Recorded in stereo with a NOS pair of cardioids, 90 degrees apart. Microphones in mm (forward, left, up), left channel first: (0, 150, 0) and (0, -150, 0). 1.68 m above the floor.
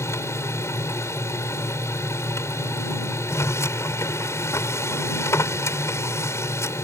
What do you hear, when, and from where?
0.0 s a machine running: 10° left